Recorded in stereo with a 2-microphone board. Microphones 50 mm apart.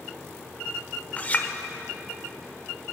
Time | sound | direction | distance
1.2 | a clink | 30° left (ahead or behind) | 0.9 m